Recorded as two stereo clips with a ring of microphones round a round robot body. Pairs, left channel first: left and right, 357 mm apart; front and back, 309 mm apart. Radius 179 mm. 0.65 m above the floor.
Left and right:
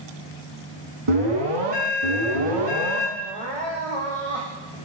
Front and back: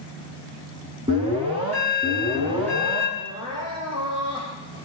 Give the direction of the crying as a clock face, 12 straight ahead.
3 o'clock.